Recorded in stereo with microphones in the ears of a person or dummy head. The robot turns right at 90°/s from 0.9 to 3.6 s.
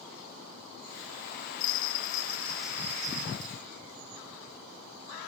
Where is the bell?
90° left, 2 m; by 3.5 s 100° right, 2 m.